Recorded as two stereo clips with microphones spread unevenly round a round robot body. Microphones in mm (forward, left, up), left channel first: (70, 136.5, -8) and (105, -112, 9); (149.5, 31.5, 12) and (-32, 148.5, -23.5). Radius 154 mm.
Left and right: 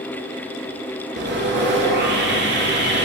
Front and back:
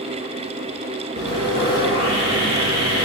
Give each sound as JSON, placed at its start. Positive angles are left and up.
{"t": 1.2, "sound": "sawing", "azimuth_deg": -140, "distance_m": 2.5}